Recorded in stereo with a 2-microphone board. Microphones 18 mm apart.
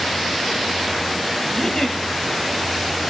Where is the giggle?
25° left (ahead or behind), 5.5 m.